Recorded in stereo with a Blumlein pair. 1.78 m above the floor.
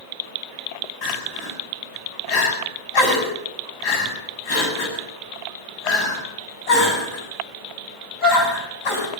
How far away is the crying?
About 8 m.